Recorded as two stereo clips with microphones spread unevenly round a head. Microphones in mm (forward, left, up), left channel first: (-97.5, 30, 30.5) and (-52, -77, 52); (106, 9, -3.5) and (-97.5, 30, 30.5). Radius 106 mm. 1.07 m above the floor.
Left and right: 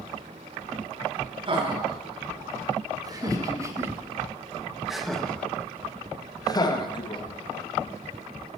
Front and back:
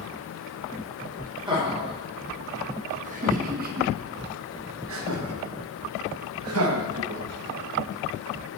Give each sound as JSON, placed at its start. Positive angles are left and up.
{"t": 1.5, "sound": "laughter", "azimuth_deg": -115, "distance_m": 3.0}